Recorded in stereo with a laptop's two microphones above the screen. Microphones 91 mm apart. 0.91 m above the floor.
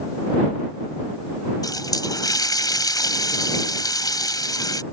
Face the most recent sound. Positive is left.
turn(degrees=45)  # may be behind; listen again after turning